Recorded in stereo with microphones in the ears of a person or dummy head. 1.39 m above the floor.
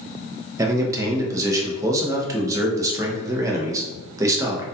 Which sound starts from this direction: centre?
A man speaking, at 0.6 s.